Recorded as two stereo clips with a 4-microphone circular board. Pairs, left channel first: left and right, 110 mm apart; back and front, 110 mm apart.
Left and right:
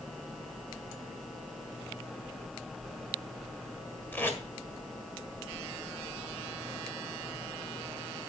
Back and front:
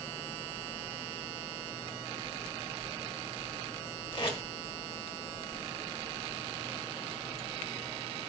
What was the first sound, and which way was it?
Tape being pulled, 160° left.